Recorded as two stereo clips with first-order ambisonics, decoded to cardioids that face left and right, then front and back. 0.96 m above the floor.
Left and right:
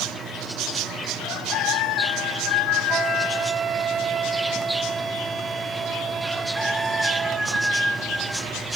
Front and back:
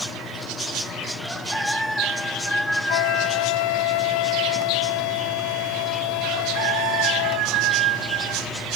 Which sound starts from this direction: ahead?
A flute, at 2.9 s.